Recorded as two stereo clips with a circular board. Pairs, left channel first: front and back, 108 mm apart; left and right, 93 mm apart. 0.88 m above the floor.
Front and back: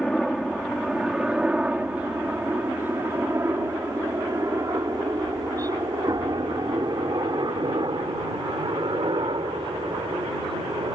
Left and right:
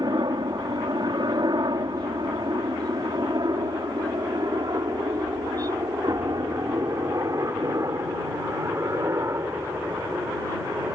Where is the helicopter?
90° right; by 10.9 s 150° right.